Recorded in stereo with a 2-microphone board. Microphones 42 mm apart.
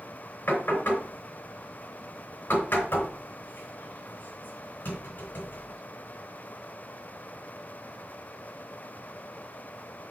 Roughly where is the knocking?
Left.